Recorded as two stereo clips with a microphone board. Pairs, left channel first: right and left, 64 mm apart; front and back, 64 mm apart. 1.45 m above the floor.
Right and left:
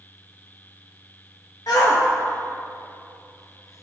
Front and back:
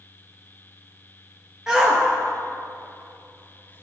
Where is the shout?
100° right, 1.5 m; by 3.8 s 55° right, 0.7 m.